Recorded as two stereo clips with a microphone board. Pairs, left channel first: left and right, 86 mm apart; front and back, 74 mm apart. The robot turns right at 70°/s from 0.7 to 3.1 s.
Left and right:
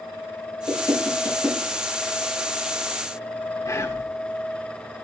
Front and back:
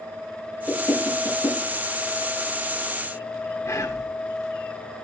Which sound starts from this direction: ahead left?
Whispering, at 3.6 s.